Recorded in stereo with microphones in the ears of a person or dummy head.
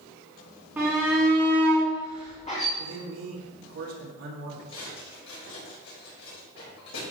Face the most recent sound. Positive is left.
turn(degrees=75)  # may be behind; listen again after turning